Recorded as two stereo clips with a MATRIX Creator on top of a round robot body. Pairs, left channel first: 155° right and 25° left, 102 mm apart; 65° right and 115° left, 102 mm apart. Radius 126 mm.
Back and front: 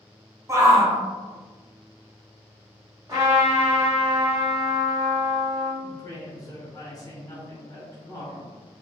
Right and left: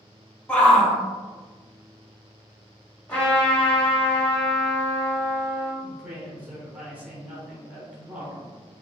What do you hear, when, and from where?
0.5 s a shout: straight ahead, 0.9 m
3.1 s a trumpet: straight ahead, 1.9 m
5.8 s a woman speaking: straight behind, 1.2 m